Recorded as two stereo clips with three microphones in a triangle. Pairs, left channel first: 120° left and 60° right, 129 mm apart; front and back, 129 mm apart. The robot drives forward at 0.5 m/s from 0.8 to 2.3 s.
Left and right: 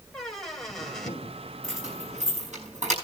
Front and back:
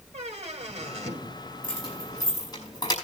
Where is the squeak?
155° right, 2 m.